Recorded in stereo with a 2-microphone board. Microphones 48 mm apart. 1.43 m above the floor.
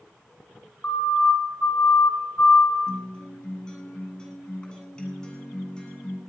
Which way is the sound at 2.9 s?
20° left (ahead or behind).